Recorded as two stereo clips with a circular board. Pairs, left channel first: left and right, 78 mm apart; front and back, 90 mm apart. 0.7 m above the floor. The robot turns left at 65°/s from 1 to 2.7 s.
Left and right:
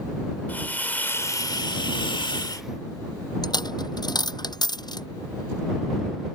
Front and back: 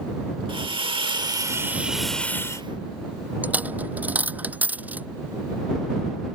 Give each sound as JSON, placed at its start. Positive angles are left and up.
{"t": 0.5, "sound": "a hiss", "azimuth_deg": 155}
{"t": 3.4, "sound": "a dropped coin", "azimuth_deg": 110}